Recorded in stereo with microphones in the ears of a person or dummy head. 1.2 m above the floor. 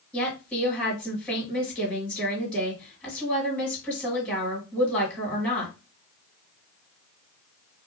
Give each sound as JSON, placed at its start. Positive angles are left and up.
{"t": 0.1, "sound": "a woman speaking", "side_deg": 5, "distance_m": 1.6}